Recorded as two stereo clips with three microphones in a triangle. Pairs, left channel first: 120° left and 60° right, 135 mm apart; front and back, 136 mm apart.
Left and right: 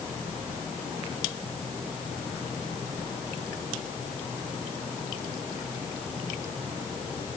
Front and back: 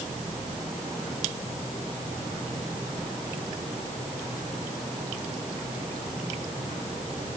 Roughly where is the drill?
I don't hear a drill.